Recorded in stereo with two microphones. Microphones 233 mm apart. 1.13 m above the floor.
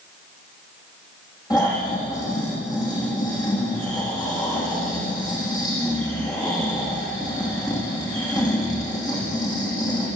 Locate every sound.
1.5 s snoring: 15° left (ahead or behind), 10 m